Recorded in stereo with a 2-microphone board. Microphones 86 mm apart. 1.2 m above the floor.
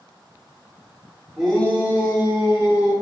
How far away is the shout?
About 1.7 m.